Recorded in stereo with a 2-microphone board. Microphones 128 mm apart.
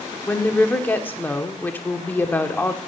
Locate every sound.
0.3 s a woman speaking: 15° left (ahead or behind), 1.0 m